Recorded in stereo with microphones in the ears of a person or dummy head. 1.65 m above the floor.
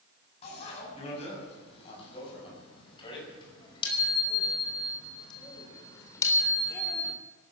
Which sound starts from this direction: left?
A bicycle bell, at 0.4 s.